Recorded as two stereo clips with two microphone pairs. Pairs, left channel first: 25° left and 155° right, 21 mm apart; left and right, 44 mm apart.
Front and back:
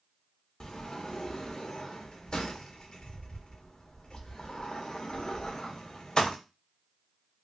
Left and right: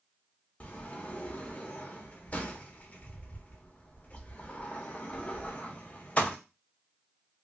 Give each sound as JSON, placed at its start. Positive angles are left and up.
{"t": 0.6, "sound": "a sliding door", "azimuth_deg": 40, "distance_m": 0.6}